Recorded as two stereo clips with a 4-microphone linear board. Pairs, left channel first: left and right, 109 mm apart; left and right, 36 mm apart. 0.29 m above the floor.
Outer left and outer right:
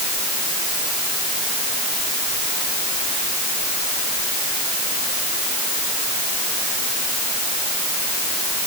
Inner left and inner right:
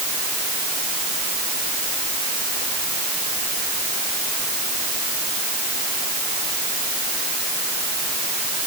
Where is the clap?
No clap in this recording.